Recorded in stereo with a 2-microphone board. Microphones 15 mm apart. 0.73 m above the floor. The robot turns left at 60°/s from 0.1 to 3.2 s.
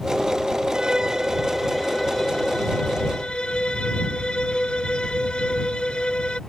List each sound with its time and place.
0.7 s a violin: 125° right; by 6.4 s 85° left